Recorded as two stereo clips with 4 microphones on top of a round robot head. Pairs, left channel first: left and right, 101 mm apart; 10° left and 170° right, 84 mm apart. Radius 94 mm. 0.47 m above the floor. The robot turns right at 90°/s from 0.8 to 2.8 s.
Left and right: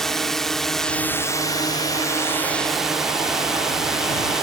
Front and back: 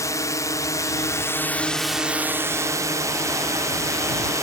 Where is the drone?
5° left; by 4.4 s 175° right.